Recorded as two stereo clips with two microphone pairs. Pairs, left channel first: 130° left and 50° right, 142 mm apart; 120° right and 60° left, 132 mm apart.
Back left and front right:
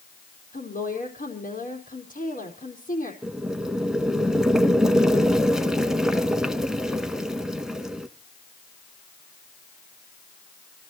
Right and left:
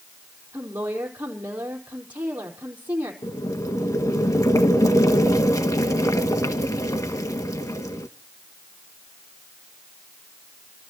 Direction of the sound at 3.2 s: 130° right.